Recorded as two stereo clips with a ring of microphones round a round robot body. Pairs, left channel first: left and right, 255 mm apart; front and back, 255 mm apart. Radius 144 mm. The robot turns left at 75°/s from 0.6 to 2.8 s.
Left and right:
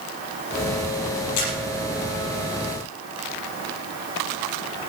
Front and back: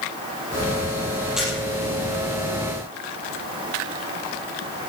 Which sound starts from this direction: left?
A camera shutter, at 1.4 s.